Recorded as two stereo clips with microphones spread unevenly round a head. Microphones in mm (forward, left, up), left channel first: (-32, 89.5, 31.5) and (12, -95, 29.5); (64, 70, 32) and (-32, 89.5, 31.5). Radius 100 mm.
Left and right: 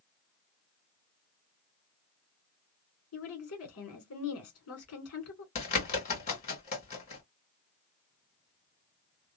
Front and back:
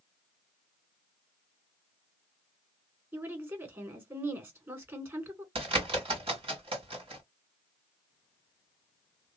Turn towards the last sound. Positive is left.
turn(degrees=155)